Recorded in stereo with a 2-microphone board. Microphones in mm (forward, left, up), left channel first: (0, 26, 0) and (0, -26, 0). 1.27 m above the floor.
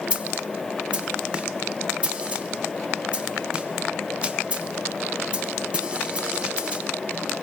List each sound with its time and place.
0.1 s a snare drum: 20° right (ahead or behind), 1.0 m